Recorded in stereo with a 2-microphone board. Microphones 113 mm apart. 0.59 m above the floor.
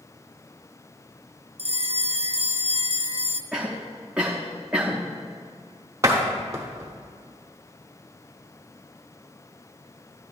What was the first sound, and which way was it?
A bell, 60° right (ahead or behind).